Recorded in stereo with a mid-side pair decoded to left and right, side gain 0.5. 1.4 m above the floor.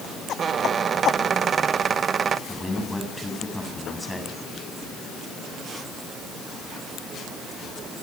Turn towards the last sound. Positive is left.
turn(degrees=10)